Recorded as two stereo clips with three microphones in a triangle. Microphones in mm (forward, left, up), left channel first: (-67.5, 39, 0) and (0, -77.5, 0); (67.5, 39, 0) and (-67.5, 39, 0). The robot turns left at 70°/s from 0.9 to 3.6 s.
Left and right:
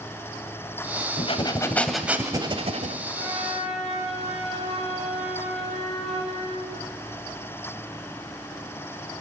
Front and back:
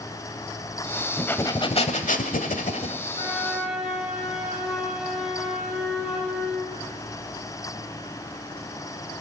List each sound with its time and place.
1.2 s breathing: 85° left, 1.1 m; by 3.0 s 45° right, 1.1 m
3.1 s a flute: 65° right, 4.5 m; by 6.7 s 95° right, 4.5 m